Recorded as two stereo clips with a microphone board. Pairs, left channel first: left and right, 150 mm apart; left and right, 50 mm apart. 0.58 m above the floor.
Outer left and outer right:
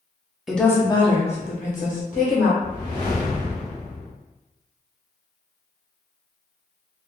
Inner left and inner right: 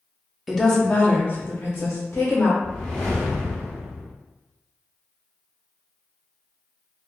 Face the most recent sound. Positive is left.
turn(degrees=15)  # may be behind; listen again after turning